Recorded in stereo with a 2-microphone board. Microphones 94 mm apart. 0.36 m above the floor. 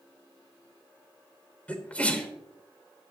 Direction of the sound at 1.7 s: 15° left (ahead or behind).